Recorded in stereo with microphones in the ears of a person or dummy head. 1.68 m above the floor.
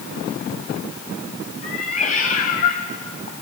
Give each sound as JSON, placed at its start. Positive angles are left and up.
{"t": 1.6, "sound": "a cat meowing", "side_deg": 45, "distance_m": 3.5}